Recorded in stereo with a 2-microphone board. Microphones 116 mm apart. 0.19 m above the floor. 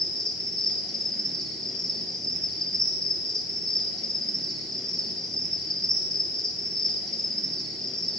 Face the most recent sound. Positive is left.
turn(degrees=5)  # may be behind; listen again after turning